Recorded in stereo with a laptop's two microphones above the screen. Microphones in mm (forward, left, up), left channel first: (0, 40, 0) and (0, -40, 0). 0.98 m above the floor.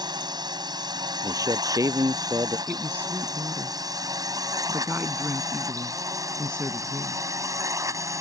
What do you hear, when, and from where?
0.0 s a drone: 65° right (ahead or behind); by 8.2 s 40° right (ahead or behind)
1.2 s a man speaking: 45° right (ahead or behind)
2.7 s a woman speaking: 25° right (ahead or behind)